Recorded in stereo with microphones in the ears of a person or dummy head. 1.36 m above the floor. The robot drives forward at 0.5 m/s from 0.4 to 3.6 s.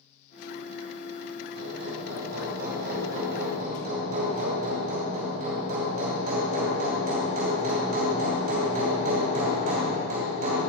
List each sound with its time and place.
1.6 s hammering: 60° right (ahead or behind), 2.5 m; by 10.6 s 45° right (ahead or behind), 3 m